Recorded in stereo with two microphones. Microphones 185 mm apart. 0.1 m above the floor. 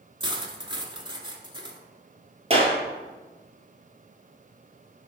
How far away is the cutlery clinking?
About 0.9 m.